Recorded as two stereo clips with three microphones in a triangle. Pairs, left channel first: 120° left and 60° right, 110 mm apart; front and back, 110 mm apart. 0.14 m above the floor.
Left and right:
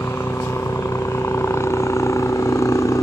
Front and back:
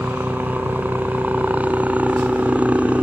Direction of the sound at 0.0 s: 130° left.